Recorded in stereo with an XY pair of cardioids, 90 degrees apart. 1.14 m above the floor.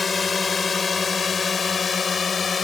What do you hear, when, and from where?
0.0 s a drone: 40° left; by 2.6 s 45° left